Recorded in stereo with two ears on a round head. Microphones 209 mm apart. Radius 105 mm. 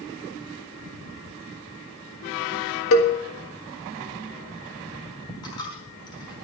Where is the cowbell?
65° left (ahead or behind), 1.7 m.